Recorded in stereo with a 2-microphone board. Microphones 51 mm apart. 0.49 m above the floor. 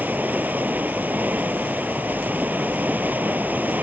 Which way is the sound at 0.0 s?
35° right (ahead or behind).